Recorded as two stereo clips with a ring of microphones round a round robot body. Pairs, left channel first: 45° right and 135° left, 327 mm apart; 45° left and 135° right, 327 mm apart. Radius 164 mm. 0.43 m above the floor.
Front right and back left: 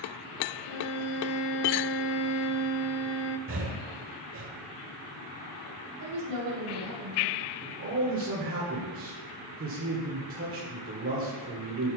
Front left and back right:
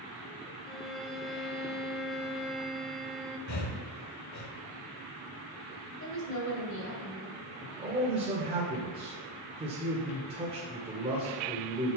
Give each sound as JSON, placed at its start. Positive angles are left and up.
{"t": 0.7, "sound": "a violin", "azimuth_deg": -45, "distance_m": 0.6}
{"t": 3.5, "sound": "breathing", "azimuth_deg": 85, "distance_m": 1.1}
{"t": 6.0, "sound": "a woman speaking", "azimuth_deg": 95, "distance_m": 2.5}
{"t": 7.6, "sound": "a man speaking", "azimuth_deg": 160, "distance_m": 1.8}